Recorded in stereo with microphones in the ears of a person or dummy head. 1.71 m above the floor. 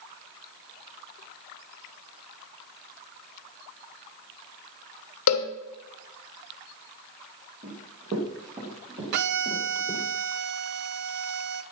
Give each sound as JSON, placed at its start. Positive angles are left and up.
{"t": 5.3, "sound": "a cowbell", "side_deg": 75, "distance_m": 1.3}
{"t": 7.6, "sound": "running footsteps", "side_deg": -45, "distance_m": 4.0}
{"t": 9.1, "sound": "a violin", "side_deg": -60, "distance_m": 0.7}